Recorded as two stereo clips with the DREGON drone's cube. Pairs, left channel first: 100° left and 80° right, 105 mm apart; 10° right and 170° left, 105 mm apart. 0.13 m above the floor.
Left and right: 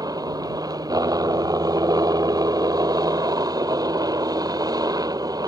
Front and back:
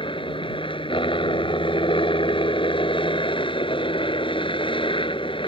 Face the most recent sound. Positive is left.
turn(degrees=-35)